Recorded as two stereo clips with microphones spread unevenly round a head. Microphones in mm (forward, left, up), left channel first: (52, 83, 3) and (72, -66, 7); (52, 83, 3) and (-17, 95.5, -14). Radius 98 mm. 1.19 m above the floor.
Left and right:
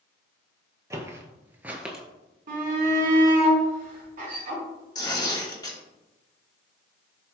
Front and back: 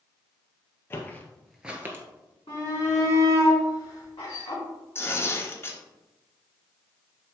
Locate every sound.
0.9 s footsteps: 20° right, 1.6 m; by 2.0 s 165° right, 1.3 m
2.5 s a shout: 60° right, 3 m
5.0 s tearing paper: 35° left, 3 m